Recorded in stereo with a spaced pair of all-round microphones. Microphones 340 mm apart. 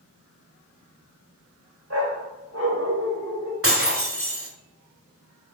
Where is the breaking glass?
40° right (ahead or behind), 1.7 m.